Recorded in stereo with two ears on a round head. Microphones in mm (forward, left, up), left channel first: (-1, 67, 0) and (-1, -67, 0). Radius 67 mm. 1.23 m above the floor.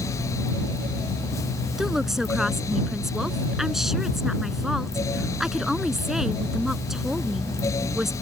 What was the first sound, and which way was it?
A woman speaking, centre (ahead or behind).